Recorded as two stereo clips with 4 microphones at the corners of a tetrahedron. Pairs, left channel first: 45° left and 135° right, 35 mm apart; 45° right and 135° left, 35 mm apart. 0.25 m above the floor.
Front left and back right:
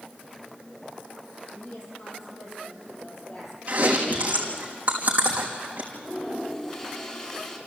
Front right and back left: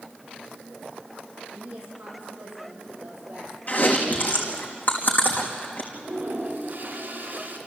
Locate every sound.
1.5 s a woman speaking: 70° left, 7.5 m; by 3.6 s 80° left, 7 m
3.7 s chewing: 85° right, 3.5 m
5.9 s a toilet flushing: 105° left, 2.5 m